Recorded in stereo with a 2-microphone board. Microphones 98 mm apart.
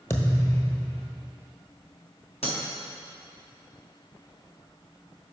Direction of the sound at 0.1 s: 25° left (ahead or behind).